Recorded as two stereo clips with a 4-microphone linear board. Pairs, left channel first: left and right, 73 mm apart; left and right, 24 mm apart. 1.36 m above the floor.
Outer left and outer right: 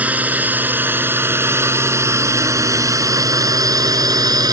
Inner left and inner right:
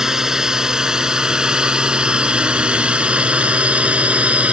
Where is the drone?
20° right (ahead or behind); by 4.5 s 60° right (ahead or behind).